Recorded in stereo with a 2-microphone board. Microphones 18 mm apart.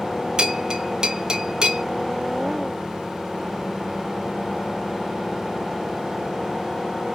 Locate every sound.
0.4 s a bell: 35° right (ahead or behind), 0.6 m